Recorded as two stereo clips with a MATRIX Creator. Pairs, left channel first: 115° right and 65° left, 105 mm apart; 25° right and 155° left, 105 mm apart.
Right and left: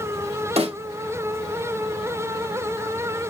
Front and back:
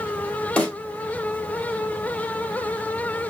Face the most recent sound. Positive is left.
turn(degrees=60)